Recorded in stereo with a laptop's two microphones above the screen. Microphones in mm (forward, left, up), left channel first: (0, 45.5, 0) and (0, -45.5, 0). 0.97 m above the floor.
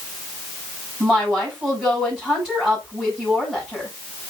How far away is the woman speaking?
About 7.5 m.